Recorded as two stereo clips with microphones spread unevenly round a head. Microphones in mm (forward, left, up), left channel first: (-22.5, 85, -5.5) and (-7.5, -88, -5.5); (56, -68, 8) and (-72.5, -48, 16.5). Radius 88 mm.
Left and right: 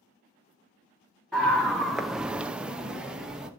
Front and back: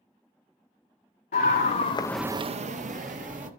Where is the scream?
5° left, 1.5 m; by 3.5 s 170° right, 2 m.